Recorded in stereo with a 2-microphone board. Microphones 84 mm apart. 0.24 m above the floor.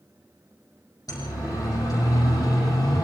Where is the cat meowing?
No cat meowing in this recording.